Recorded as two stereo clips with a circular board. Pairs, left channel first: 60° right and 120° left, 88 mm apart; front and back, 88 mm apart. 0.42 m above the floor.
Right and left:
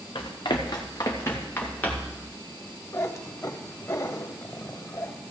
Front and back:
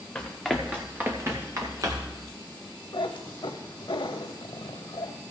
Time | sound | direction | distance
0.1 | running footsteps | 80° right | 2 m
2.9 | a cat meowing | 10° right | 0.8 m